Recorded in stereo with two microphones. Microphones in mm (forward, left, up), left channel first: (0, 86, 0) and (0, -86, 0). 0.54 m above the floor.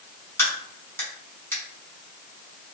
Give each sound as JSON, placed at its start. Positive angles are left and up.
{"t": 0.4, "sound": "a crack", "side_deg": 15, "distance_m": 1.7}